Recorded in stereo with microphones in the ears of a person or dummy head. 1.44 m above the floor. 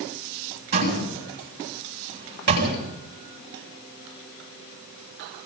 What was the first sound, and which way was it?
A door slam, 50° right (ahead or behind).